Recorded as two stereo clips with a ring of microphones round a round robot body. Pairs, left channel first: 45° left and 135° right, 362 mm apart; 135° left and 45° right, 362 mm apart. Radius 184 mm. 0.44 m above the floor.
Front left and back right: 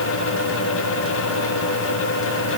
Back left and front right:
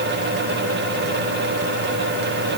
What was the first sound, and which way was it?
Only background noise.